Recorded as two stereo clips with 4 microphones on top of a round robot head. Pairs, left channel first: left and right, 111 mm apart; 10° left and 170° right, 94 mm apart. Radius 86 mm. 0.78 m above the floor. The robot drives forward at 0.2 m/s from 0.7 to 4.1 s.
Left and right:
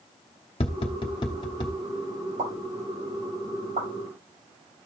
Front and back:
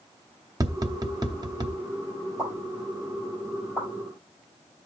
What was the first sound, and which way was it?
Tapping, 140° left.